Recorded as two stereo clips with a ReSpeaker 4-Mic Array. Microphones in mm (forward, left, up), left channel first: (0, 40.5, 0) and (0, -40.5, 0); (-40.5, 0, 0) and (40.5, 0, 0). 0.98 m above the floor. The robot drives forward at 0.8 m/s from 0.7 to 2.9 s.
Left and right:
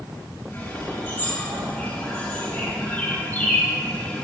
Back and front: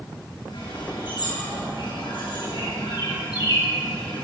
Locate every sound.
0.5 s a bird: 160° left, 6 m; by 4.2 s 165° left, 8 m